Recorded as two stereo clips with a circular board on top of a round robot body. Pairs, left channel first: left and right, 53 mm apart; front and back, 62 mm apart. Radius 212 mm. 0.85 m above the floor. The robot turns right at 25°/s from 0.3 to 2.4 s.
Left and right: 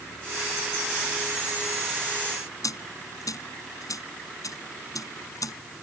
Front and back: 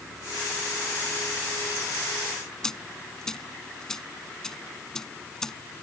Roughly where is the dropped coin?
Left.